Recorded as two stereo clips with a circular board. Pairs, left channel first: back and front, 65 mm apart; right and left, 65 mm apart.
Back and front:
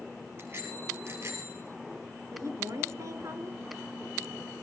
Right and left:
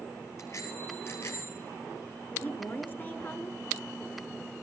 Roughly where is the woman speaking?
Ahead right.